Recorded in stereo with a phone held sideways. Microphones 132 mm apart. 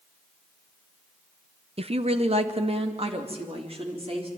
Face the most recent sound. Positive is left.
turn(degrees=-45)  # may be behind; listen again after turning